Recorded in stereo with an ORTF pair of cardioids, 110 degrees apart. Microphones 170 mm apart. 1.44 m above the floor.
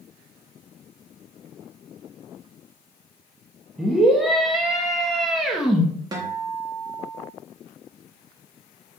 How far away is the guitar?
About 1.2 m.